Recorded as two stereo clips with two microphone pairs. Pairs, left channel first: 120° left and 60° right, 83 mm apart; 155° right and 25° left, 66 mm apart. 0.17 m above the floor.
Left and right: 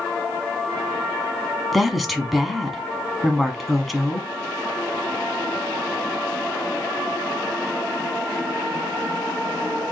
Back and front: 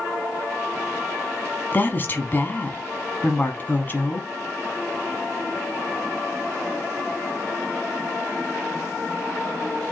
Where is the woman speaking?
145° right, 1.2 m.